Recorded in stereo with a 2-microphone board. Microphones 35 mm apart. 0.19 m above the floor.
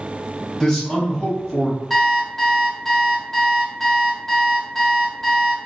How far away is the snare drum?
I don't hear a snare drum.